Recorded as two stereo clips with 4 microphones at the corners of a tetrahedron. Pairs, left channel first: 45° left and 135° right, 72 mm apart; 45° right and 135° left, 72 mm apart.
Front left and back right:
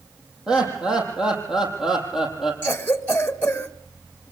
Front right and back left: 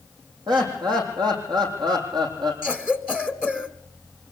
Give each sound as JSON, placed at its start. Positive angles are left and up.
{"t": 0.5, "sound": "laughter", "azimuth_deg": 145, "distance_m": 7.5}
{"t": 2.6, "sound": "a cough", "azimuth_deg": 80, "distance_m": 1.4}